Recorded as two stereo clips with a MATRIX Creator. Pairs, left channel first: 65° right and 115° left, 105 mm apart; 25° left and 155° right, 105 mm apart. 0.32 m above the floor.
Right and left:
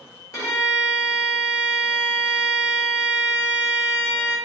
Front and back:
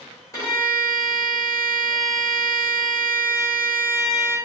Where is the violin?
25° right, 1.0 m.